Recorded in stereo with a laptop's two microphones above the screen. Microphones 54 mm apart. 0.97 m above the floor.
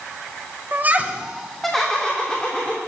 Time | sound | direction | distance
0.7 | laughter | 40° right (ahead or behind) | 0.6 m